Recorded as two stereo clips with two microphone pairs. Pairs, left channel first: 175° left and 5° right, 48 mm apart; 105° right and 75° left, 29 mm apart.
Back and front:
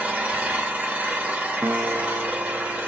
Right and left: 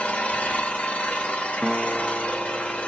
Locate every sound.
0.0 s an engine running: 70° right, 1.1 m
1.6 s a guitar: 5° right, 0.7 m